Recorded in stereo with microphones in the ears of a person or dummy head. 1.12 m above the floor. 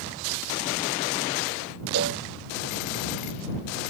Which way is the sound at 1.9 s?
60° right (ahead or behind).